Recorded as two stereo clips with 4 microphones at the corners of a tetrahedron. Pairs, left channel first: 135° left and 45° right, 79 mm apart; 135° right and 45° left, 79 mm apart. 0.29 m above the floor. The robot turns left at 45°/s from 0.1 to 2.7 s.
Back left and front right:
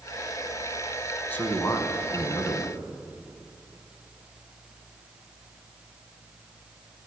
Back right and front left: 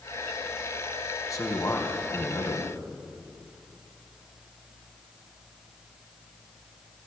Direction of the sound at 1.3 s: 160° right.